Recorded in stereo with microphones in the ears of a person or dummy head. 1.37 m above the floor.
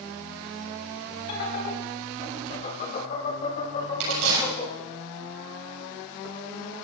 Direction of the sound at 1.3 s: 60° left (ahead or behind).